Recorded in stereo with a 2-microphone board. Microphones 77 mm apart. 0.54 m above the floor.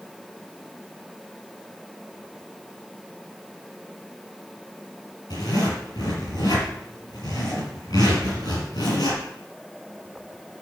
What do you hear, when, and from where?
5.3 s a zipper: 65° left (ahead or behind), 5.5 m